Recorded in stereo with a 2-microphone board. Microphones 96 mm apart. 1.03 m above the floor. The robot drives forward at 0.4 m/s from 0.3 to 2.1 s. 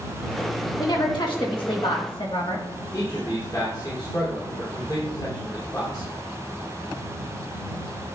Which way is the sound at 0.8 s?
50° left (ahead or behind).